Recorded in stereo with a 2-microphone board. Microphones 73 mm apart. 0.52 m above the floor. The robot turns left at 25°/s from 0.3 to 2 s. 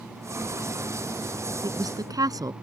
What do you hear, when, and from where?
1.6 s a woman speaking: 70° right (ahead or behind); by 2.5 s 60° right (ahead or behind)